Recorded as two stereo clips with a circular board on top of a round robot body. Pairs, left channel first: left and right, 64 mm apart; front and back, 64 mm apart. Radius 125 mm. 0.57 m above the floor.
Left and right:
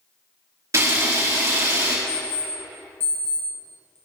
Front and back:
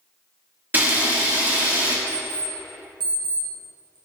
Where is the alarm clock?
150° left, 2.5 m.